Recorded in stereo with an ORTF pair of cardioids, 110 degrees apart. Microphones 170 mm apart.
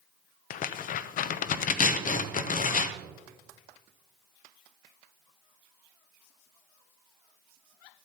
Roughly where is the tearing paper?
Ahead left.